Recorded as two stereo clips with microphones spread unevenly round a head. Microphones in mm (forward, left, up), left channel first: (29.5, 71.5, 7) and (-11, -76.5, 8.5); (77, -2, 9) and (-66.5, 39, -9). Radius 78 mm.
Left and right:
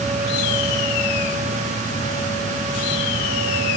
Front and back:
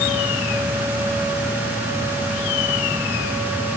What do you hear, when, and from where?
Only background noise.